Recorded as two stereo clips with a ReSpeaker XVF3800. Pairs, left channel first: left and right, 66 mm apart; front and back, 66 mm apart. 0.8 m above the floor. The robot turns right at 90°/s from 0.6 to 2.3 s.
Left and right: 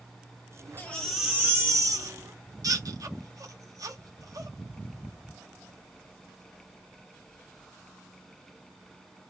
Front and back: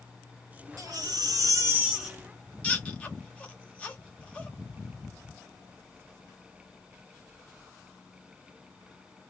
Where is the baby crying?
150° left, 0.9 m; by 4.5 s 70° right, 0.9 m.